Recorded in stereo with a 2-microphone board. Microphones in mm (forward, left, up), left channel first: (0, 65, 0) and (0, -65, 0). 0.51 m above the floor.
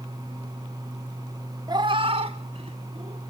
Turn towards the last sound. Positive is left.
turn(degrees=-55)  # may be behind; listen again after turning